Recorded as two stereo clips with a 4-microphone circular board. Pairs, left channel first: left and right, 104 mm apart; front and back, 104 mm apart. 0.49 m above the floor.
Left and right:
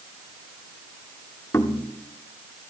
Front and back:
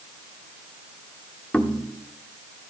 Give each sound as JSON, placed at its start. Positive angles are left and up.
{"t": 1.5, "sound": "knocking", "azimuth_deg": 65, "distance_m": 1.1}